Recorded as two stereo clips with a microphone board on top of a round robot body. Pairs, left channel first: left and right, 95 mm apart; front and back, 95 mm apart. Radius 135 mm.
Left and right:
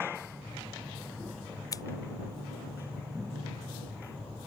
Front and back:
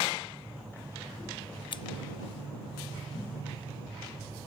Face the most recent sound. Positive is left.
turn(degrees=35)